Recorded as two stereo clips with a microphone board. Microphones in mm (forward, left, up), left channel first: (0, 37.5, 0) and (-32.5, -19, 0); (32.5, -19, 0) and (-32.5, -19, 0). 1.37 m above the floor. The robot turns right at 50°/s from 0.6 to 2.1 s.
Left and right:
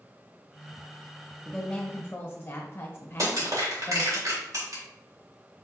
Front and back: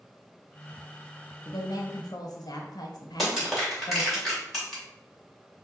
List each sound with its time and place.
1.4 s a woman speaking: 30° right, 1.1 m; by 4.2 s 5° left, 1.1 m
3.2 s crushing: 90° right, 2.0 m